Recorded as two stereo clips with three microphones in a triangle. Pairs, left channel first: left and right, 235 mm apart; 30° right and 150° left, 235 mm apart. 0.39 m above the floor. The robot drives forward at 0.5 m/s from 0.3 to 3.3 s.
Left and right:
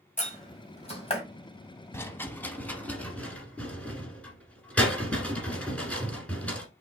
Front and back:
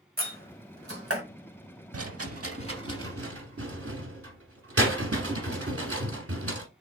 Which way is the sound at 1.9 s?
165° left.